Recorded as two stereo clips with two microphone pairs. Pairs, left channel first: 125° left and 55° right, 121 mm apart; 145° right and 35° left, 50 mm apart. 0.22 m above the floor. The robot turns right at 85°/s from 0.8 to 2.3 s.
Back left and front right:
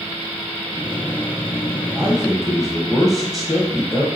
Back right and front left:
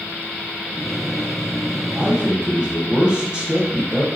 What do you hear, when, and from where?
1.9 s a man speaking: 5° left, 1.4 m; by 4.0 s 35° left, 1.4 m